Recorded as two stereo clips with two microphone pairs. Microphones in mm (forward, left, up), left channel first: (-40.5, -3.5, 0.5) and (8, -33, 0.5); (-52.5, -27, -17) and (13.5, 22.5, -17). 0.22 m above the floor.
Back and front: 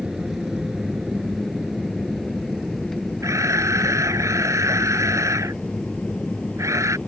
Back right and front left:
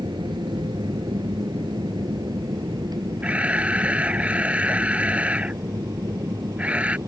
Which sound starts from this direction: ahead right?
A camera shutter, at 3.2 s.